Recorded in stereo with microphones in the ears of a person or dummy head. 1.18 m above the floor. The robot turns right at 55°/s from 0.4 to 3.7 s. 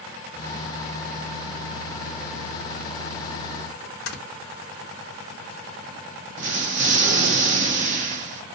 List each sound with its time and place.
4.1 s snoring: 75° left (ahead or behind), 0.7 m
6.4 s an explosion: 40° right (ahead or behind), 0.5 m